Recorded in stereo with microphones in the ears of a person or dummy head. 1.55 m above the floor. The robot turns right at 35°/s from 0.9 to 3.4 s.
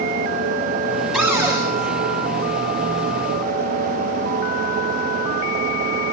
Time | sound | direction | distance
1.1 | a cupboard door | 5° right (ahead or behind) | 6.5 m